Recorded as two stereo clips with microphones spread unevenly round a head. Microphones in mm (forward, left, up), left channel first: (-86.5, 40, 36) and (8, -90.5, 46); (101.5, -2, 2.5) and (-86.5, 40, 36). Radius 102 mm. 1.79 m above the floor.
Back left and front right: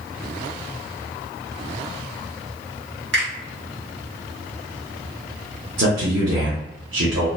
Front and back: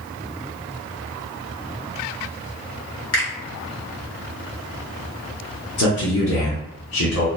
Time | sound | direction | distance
3.1 | a finger snap | 45° right | 1.2 m
5.8 | a man speaking | 40° right | 0.7 m